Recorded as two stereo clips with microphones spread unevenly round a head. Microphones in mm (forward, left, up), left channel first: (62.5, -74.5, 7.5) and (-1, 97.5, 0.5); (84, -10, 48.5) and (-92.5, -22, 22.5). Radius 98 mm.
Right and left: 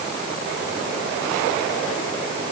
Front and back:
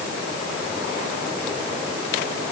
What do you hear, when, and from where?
Only background noise.